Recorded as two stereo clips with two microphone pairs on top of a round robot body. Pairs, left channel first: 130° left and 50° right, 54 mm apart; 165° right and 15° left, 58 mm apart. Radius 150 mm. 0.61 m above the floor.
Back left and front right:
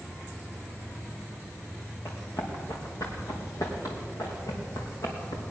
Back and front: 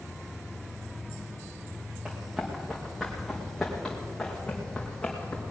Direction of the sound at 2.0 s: 85° left.